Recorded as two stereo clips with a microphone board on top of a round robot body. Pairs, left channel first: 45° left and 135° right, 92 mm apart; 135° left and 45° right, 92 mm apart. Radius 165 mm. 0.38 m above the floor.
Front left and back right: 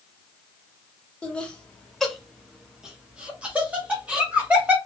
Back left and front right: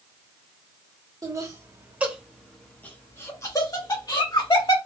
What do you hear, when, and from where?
1.2 s laughter: 25° right, 1.1 m; by 4.8 s 155° left, 1.6 m